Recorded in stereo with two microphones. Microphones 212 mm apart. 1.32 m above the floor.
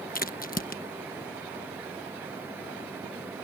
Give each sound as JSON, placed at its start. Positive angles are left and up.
{"t": 0.1, "sound": "a crack", "side_deg": 45}